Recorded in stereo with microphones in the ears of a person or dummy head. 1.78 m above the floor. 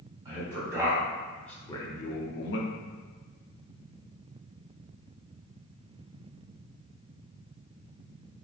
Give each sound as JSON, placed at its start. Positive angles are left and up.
{"t": 0.2, "sound": "a man speaking", "side_deg": -20, "distance_m": 1.1}